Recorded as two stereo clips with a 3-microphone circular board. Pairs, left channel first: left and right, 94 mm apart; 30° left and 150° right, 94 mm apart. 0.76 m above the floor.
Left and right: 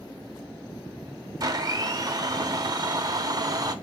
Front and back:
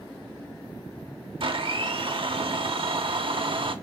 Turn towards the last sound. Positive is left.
turn(degrees=-135)